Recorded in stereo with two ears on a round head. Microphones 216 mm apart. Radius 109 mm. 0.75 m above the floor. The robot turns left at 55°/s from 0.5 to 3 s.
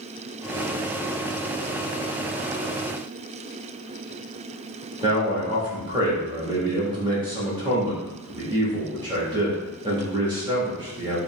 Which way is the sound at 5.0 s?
20° right (ahead or behind).